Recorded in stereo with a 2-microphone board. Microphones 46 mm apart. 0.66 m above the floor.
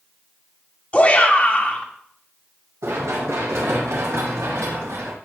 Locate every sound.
0.9 s a shout: 30° left (ahead or behind), 1.7 m
2.8 s running footsteps: 80° right, 6.5 m; by 5.1 s 85° right, 8 m